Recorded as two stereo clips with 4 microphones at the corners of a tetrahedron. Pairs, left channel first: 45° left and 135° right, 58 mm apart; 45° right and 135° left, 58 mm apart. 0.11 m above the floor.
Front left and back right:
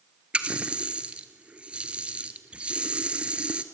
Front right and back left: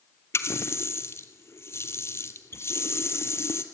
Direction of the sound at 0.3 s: 70° right.